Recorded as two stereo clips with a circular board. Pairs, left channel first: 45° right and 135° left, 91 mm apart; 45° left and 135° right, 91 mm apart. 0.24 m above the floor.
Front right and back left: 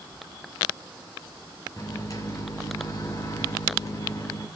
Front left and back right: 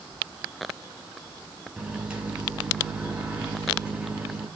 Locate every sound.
1.8 s a microwave: 65° right, 1.7 m